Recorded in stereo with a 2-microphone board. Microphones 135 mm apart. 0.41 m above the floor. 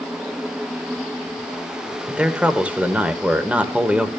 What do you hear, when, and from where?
2.1 s a man speaking: 10° right (ahead or behind), 1.3 m